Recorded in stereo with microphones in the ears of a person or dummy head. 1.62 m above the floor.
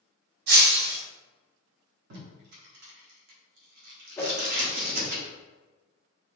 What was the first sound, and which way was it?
Breaking glass, 60° right (ahead or behind).